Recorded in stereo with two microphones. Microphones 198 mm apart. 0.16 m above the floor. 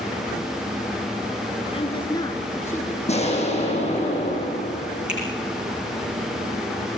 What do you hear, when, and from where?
1.7 s a woman speaking: 30° left (ahead or behind), 2 m; by 3.0 s 10° left (ahead or behind), 3 m
3.1 s an explosion: 35° left (ahead or behind), 6.5 m
5.1 s a finger snap: 5° right (ahead or behind), 9 m